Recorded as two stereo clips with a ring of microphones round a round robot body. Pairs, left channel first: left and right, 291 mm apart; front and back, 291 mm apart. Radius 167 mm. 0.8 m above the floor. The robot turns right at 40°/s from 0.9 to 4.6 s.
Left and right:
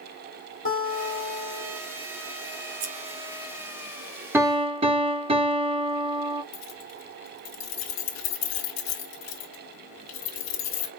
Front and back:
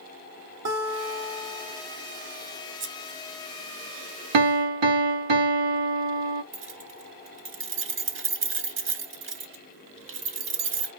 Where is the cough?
No cough in this recording.